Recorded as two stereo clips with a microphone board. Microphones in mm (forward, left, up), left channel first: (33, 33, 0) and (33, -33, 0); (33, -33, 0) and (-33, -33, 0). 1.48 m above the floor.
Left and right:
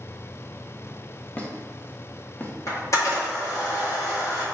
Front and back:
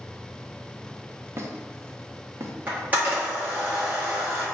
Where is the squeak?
145° left, 0.7 m.